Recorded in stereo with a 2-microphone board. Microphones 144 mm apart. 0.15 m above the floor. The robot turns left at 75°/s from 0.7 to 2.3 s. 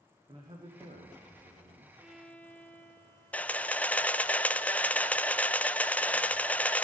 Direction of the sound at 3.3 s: 10° left (ahead or behind).